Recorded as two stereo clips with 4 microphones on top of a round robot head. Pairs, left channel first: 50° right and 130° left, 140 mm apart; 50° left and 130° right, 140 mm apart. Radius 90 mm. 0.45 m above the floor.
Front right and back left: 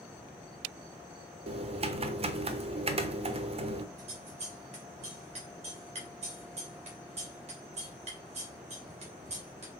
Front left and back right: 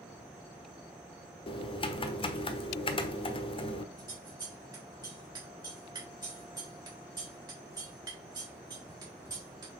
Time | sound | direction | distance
1.5 | typing on a keyboard | 95° left | 1.0 m
4.0 | scissors | 170° left | 3.5 m